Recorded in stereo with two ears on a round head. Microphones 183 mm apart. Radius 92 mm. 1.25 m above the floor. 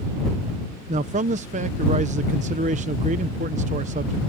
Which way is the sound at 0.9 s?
35° right (ahead or behind).